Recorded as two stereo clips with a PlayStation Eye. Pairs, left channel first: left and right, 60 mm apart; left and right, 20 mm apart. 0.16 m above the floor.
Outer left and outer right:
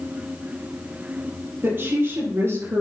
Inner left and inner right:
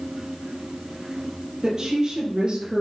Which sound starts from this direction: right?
A woman speaking, at 1.6 s.